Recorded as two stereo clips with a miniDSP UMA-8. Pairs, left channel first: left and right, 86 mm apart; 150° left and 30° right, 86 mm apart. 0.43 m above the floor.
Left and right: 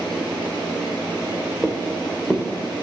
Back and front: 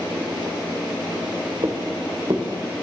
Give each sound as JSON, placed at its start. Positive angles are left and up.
{"t": 1.6, "sound": "footsteps", "azimuth_deg": 10, "distance_m": 2.0}